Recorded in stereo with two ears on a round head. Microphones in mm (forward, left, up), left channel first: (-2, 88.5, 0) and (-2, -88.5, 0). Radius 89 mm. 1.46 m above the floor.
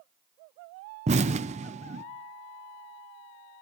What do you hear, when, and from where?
1.1 s an explosion: 35° right (ahead or behind), 0.6 m